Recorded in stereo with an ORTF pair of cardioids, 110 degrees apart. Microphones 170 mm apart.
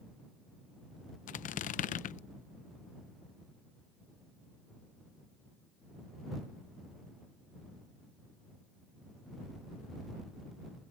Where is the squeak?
55° left.